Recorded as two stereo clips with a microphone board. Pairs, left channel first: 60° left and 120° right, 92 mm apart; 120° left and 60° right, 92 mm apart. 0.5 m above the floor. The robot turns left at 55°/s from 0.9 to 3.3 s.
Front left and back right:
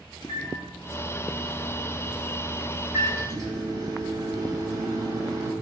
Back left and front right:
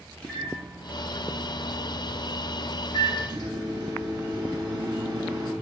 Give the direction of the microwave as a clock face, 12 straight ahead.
10 o'clock.